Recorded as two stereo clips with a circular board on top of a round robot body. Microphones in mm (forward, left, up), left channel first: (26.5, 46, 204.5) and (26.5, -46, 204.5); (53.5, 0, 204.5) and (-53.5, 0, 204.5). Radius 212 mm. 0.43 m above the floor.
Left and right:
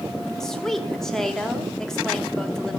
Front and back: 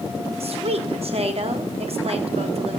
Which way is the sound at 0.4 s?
175° left.